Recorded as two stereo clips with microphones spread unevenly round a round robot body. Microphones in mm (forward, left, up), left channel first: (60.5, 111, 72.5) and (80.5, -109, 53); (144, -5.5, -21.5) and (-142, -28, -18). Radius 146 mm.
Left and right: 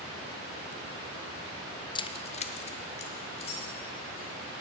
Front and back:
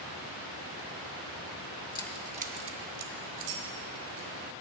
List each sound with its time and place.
1.9 s keys jangling: 45° left, 0.6 m; by 4.3 s 165° left, 2.5 m